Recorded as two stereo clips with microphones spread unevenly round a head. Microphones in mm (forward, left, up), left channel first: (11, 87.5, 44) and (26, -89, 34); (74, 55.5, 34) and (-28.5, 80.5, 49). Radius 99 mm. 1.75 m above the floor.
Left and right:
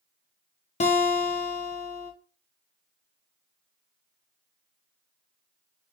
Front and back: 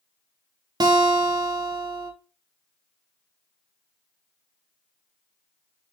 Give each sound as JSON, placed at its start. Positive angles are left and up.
{"t": 0.8, "sound": "a guitar", "azimuth_deg": 140, "distance_m": 0.5}